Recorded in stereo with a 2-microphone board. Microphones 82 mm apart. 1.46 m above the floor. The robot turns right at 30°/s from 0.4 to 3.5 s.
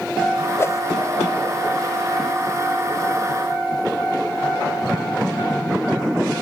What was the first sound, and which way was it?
A whoosh, 30° left (ahead or behind).